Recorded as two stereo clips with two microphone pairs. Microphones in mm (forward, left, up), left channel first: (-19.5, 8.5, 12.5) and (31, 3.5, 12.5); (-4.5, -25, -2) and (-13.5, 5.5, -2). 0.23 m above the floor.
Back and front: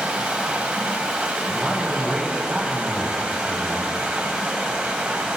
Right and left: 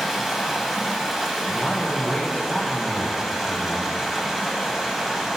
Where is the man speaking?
75° right, 1.3 m.